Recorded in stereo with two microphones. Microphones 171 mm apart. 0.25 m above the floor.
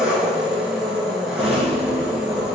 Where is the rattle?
35° right (ahead or behind), 1.5 m.